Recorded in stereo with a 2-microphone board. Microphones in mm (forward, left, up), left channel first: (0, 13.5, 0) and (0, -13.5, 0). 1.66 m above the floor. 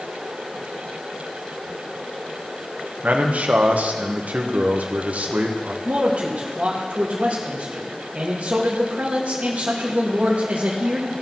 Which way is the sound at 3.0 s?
65° right (ahead or behind).